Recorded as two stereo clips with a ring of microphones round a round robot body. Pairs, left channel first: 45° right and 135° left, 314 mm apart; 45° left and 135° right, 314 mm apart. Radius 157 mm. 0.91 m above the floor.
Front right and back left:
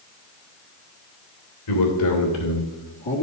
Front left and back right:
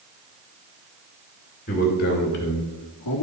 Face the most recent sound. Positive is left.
turn(degrees=15)